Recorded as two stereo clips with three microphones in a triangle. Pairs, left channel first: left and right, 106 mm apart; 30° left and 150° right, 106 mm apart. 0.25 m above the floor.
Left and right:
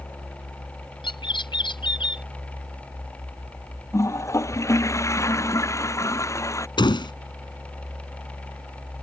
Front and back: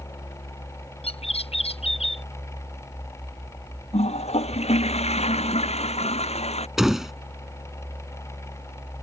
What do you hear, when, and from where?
1.0 s a bird: 50° left
3.9 s a toilet flushing: 30° left
6.8 s a door slam: 125° left